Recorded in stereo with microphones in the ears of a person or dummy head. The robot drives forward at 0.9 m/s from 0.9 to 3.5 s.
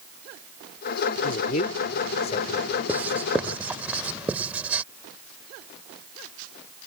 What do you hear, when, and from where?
1.2 s a man speaking: 40° left (ahead or behind); by 2.7 s 30° left (ahead or behind)
2.9 s writing: 5° right (ahead or behind)